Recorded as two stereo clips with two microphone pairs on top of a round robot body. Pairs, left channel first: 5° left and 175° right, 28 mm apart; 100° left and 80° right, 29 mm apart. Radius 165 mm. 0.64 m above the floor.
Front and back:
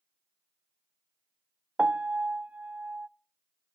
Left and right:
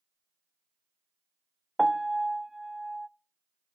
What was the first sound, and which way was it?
A piano, 155° right.